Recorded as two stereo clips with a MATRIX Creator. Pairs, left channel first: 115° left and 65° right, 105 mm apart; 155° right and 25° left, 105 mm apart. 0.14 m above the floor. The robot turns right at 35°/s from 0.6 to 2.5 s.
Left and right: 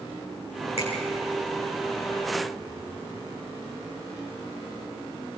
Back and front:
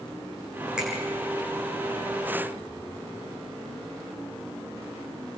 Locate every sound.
0.8 s a finger snap: 105° left, 7.5 m; by 0.9 s 110° left, 7.5 m